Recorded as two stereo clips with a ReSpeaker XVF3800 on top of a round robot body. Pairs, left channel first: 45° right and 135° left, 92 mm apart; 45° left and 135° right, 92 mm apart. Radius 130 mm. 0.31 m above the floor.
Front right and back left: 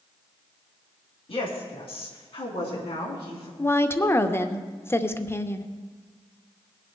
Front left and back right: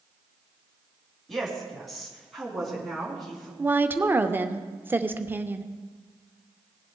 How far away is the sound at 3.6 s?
About 1.0 m.